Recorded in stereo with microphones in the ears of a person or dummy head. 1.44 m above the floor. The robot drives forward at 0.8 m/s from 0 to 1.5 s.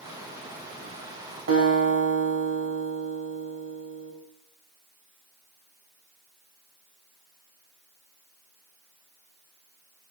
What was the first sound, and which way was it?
A guitar, 80° right.